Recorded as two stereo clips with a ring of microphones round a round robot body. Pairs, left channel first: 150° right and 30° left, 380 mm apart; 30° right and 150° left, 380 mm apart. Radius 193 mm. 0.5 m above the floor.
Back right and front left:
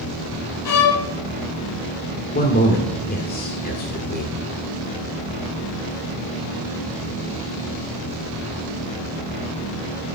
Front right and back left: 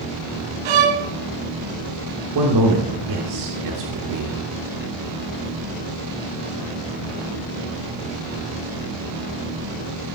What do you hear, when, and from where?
0.7 s a violin: 170° left, 1.5 m
2.4 s a man speaking: 150° left, 1.7 m